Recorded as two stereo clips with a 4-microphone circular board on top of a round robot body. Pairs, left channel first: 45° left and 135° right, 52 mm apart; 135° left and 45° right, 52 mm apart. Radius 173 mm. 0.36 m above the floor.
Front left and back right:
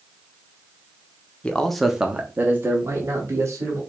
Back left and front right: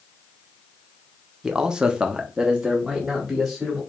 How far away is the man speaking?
About 0.8 m.